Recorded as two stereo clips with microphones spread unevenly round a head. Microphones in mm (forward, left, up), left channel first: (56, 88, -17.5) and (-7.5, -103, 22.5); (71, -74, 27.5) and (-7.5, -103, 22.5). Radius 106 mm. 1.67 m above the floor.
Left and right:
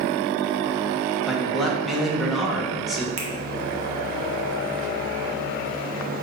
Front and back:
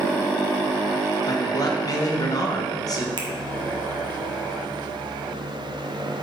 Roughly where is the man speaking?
Ahead.